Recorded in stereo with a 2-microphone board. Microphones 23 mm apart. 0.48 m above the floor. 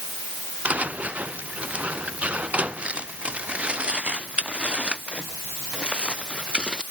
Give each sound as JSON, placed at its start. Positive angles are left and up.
{"t": 0.7, "sound": "footsteps", "side_deg": -65}